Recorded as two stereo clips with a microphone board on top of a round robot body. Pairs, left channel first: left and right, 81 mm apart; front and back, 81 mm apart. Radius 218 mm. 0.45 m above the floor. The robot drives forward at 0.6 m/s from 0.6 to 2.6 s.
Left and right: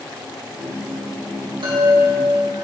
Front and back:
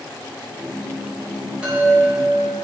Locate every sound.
1.6 s a chime: 105° right, 3.5 m; by 2.6 s 110° right, 4 m